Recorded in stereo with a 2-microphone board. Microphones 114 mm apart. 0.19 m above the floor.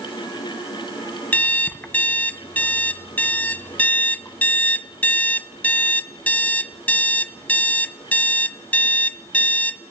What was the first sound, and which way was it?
An alarm clock, 15° left (ahead or behind).